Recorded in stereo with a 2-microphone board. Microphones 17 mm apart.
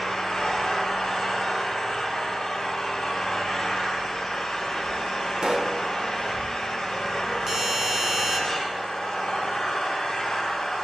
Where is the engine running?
55° left (ahead or behind), 6.5 m.